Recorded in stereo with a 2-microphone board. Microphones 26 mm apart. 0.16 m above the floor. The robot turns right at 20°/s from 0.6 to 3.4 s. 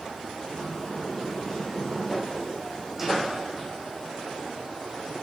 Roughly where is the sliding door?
Behind left.